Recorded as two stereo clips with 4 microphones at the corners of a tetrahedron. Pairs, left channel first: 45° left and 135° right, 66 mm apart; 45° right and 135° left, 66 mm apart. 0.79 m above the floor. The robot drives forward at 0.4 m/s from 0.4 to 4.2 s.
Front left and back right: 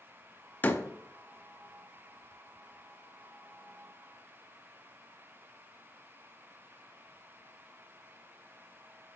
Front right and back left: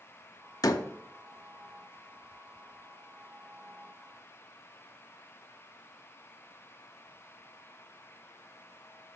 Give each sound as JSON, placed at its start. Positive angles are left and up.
{"t": 0.6, "sound": "a door slam", "azimuth_deg": -15, "distance_m": 0.6}